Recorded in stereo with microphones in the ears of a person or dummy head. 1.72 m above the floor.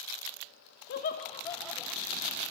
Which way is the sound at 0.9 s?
60° left (ahead or behind).